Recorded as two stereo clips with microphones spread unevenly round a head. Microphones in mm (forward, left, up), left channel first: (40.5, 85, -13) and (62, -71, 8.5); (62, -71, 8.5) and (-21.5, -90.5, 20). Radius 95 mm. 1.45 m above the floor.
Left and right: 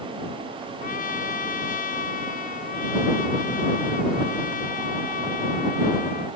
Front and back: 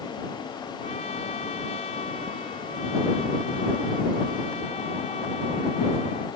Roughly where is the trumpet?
Ahead left.